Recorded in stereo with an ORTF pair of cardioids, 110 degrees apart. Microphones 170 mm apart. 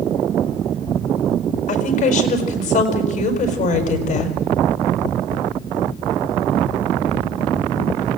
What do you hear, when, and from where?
1.7 s a woman speaking: 50° left, 5.5 m